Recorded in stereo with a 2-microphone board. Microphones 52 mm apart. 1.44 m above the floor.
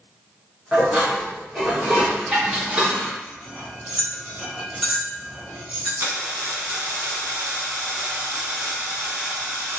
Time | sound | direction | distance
0.7 | dishes clattering | 20° right (ahead or behind) | 1.2 m
3.2 | cutlery clinking | 10° right (ahead or behind) | 1.5 m
6.0 | a dropped coin | 40° right (ahead or behind) | 1.6 m